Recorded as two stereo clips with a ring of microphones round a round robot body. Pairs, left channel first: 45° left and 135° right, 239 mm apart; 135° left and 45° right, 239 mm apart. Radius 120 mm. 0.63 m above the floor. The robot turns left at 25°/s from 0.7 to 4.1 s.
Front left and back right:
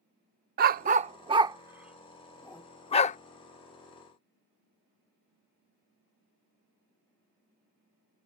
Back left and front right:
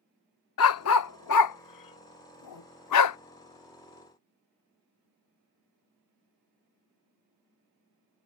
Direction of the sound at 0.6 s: 170° left.